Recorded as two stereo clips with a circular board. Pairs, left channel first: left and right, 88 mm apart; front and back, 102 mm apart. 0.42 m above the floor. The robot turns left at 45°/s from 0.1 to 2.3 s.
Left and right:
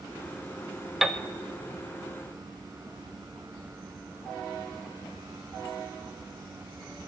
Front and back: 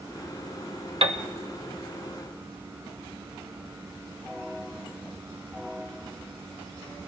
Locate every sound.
1.0 s a piano: 175° right, 0.7 m; by 1.2 s 175° left, 0.7 m